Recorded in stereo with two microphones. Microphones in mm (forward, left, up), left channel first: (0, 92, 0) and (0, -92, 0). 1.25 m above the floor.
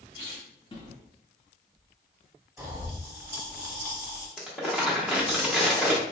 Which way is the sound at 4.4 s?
5° right (ahead or behind).